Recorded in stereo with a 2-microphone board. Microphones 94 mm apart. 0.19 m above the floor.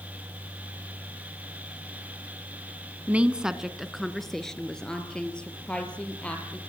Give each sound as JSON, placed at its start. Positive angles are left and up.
{"t": 3.1, "sound": "a woman speaking", "side_deg": -15, "distance_m": 1.5}